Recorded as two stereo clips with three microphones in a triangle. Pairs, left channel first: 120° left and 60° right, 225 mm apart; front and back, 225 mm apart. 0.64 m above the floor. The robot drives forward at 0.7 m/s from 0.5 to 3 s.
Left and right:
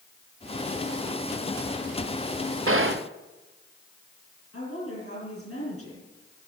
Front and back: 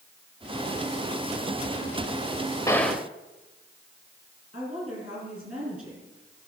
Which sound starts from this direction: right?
A gunshot, at 2.7 s.